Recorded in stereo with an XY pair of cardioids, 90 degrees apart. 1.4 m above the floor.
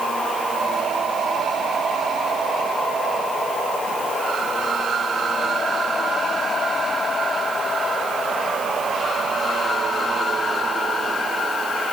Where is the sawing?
No sawing in this recording.